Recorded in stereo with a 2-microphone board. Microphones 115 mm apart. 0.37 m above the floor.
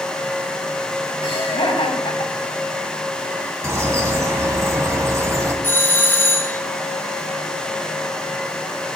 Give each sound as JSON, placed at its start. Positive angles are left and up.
{"t": 1.2, "sound": "laughter", "side_deg": 50, "distance_m": 2.5}
{"t": 3.6, "sound": "a bird", "side_deg": -25, "distance_m": 2.5}
{"t": 5.6, "sound": "a doorbell", "side_deg": 20, "distance_m": 1.4}